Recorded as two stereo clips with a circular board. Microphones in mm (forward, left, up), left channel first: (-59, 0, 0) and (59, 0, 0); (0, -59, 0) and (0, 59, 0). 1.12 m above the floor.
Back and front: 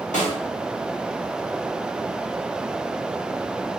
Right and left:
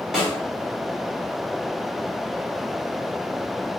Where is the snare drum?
175° left, 4 m.